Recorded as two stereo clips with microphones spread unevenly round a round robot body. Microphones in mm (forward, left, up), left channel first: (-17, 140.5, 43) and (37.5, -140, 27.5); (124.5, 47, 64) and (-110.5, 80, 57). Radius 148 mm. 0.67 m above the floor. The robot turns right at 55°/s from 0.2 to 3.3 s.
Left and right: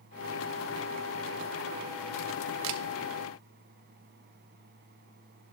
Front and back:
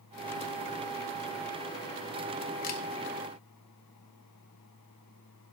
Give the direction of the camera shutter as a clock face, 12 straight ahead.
2 o'clock.